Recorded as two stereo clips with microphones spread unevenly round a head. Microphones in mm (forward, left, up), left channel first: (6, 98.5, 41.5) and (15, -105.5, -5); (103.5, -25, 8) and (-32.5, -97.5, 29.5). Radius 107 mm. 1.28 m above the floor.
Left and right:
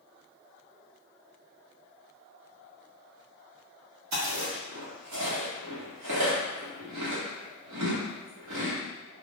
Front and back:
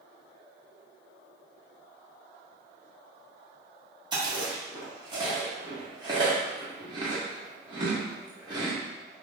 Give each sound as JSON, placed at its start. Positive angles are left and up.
{"t": 4.1, "sound": "chewing", "azimuth_deg": -95, "distance_m": 1.4}